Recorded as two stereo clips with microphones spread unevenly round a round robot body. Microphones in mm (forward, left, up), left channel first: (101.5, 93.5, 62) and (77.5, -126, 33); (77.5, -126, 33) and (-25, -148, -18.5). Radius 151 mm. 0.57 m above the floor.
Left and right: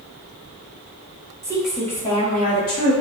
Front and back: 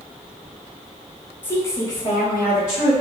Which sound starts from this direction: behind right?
A woman speaking, at 1.4 s.